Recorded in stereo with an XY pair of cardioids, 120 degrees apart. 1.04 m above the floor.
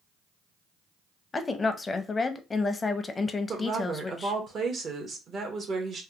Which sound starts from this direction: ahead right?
A woman speaking, at 3.5 s.